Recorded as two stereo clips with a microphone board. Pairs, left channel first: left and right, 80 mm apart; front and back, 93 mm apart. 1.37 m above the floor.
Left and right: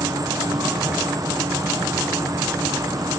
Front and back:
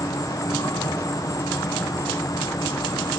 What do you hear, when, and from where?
0.0 s an insect: 50° right, 0.8 m